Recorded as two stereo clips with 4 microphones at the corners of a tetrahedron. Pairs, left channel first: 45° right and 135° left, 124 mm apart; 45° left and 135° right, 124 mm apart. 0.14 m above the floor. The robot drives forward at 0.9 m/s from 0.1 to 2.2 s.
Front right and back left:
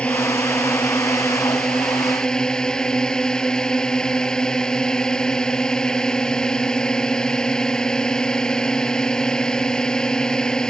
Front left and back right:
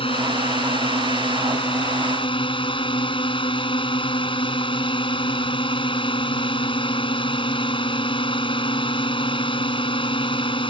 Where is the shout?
I don't hear a shout.